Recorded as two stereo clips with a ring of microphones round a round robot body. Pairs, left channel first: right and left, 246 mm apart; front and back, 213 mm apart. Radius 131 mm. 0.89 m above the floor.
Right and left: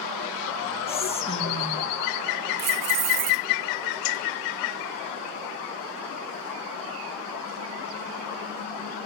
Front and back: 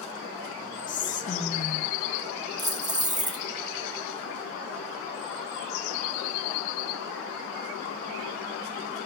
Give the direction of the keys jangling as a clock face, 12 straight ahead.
8 o'clock.